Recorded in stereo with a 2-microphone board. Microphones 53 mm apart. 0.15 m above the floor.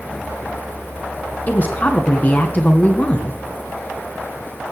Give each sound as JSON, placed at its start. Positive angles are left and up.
{"t": 1.5, "sound": "a woman speaking", "side_deg": 35, "distance_m": 1.8}